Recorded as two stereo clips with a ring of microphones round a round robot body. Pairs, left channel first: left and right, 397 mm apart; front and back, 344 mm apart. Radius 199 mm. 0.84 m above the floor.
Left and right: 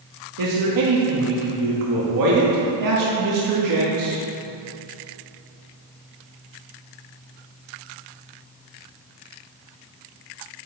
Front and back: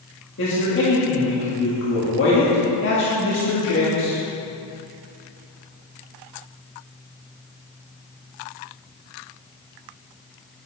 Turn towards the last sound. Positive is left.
turn(degrees=-55)